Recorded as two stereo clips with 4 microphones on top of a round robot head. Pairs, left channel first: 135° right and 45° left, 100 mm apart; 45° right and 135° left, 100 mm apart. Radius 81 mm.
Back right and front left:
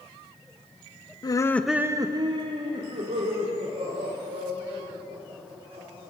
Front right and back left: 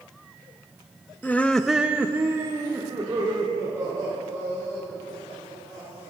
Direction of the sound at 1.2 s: 110° right.